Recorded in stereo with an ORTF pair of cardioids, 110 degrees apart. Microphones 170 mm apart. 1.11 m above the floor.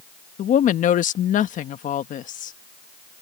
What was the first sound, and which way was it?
A woman speaking, 55° left.